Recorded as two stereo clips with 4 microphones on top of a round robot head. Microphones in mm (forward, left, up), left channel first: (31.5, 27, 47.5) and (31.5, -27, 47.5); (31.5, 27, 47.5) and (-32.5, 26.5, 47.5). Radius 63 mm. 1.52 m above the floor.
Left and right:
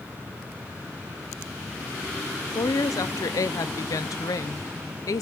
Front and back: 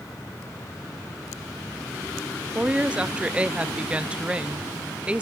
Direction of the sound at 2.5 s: 105° left.